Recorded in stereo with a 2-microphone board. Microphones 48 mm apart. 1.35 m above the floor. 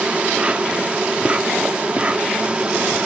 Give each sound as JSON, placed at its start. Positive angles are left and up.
{"t": 0.0, "sound": "an insect", "side_deg": -25, "distance_m": 0.9}